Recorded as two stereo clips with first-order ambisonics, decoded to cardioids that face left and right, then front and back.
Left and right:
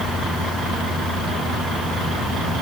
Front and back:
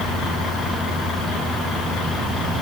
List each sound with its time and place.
Only background noise.